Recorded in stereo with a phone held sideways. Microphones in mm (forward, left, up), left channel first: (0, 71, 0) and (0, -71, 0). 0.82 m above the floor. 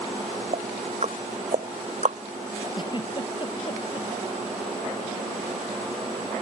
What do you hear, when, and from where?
0.5 s ticking: 55° right (ahead or behind)
2.7 s a giggle: 35° left (ahead or behind)